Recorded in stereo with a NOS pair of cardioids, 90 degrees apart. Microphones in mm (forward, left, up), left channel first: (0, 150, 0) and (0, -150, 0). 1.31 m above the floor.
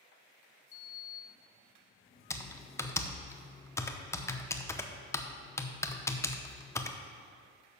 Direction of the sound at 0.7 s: 45° left.